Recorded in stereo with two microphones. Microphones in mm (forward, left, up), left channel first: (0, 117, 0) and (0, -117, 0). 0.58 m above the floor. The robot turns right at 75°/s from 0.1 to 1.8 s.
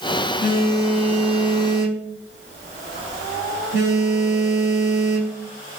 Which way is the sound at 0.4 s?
135° left.